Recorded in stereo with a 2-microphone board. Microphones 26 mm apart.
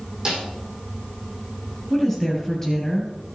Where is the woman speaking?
10° left (ahead or behind), 3 m.